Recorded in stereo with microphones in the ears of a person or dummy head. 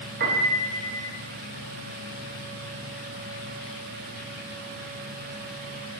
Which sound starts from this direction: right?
A piano, at 0.2 s.